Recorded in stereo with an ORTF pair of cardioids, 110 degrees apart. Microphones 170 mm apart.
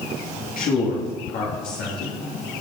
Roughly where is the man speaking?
Ahead left.